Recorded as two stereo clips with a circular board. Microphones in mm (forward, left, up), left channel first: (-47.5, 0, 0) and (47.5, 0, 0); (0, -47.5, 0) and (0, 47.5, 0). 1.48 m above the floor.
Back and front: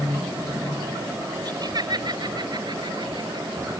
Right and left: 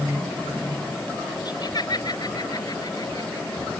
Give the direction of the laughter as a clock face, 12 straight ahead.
2 o'clock.